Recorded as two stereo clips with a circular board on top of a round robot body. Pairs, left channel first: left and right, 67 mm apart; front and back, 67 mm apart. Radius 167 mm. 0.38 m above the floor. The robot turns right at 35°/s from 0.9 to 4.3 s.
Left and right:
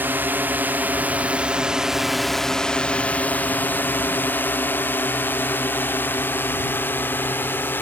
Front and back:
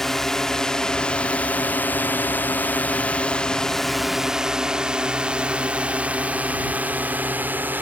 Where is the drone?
80° right; by 7.8 s 130° left.